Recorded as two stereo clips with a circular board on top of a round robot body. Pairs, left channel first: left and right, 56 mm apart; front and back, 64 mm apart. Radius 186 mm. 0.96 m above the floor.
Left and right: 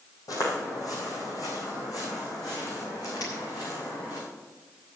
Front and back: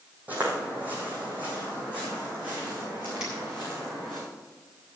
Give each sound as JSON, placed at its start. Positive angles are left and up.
{"t": 0.3, "sound": "footsteps", "azimuth_deg": 110, "distance_m": 2.5}
{"t": 3.2, "sound": "a finger snap", "azimuth_deg": 105, "distance_m": 6.5}